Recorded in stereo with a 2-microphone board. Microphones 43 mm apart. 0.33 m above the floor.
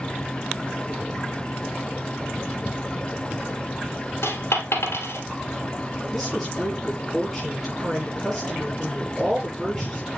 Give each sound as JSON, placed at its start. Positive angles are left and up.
{"t": 4.2, "sound": "a dropped coin", "side_deg": 75, "distance_m": 2.5}
{"t": 6.1, "sound": "a woman speaking", "side_deg": 5, "distance_m": 6.0}